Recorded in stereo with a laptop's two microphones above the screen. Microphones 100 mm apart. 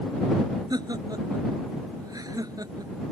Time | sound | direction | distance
0.7 | laughter | 40° right (ahead or behind) | ?